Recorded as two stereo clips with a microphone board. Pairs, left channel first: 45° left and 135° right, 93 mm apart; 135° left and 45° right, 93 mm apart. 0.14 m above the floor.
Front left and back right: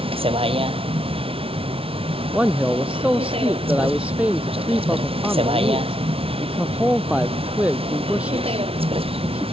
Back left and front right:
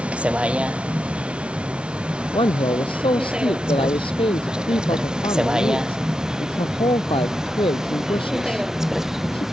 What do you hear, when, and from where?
0.0 s a vehicle: 120° right; by 9.5 s 130° right
2.3 s a man speaking: 150° left